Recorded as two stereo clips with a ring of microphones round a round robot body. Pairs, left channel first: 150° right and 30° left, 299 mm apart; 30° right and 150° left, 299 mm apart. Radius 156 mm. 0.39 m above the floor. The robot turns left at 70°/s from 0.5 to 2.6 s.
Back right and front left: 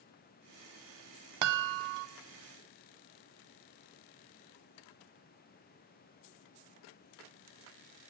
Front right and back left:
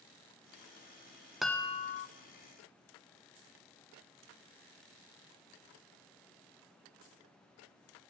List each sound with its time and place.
1.4 s a chime: 60° left, 0.5 m; by 2.1 s 15° left, 0.5 m